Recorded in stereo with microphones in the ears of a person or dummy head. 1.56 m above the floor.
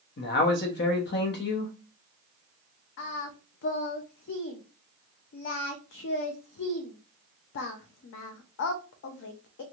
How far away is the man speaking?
About 0.8 m.